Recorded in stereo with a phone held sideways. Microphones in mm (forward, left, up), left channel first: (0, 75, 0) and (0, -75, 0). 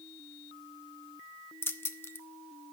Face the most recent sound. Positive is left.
turn(degrees=15)  # may be behind; listen again after turning